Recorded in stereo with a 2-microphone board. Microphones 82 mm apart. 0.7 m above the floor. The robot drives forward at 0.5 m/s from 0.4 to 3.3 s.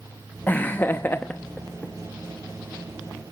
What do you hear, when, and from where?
0.5 s laughter: 20° left (ahead or behind), 0.6 m